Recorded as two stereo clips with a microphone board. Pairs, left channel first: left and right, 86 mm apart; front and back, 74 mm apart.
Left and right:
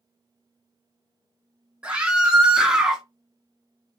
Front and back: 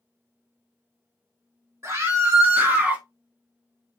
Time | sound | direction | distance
1.8 | a scream | 165° right | 1.7 m